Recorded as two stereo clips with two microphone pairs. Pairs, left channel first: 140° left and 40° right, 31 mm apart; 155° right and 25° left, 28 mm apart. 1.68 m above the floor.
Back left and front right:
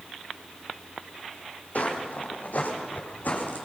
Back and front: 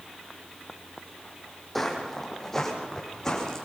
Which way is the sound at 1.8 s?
120° left.